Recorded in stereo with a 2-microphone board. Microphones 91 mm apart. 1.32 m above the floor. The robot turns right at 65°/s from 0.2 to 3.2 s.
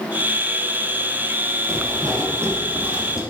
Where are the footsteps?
35° right (ahead or behind), 1.8 m; by 3.2 s 5° right (ahead or behind), 2.5 m.